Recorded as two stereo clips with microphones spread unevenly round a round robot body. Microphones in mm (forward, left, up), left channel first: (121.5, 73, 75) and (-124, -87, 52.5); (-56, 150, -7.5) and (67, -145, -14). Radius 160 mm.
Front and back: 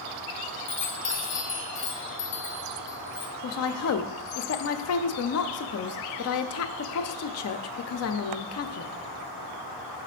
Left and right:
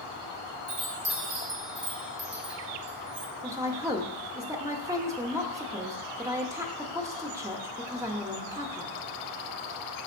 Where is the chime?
15° right, 0.8 m.